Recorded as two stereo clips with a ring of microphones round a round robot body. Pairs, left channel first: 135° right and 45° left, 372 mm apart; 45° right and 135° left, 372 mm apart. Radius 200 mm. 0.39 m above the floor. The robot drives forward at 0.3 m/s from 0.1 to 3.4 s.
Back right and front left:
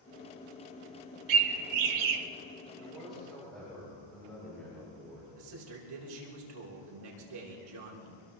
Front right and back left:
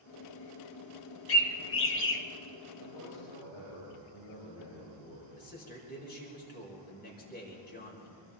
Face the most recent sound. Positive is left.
turn(degrees=20)